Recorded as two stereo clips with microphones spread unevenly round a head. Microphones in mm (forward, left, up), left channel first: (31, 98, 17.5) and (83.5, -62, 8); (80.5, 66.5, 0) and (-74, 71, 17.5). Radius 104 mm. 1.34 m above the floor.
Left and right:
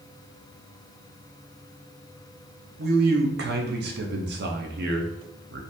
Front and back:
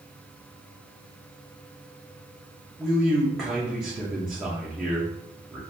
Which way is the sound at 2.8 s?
90° right.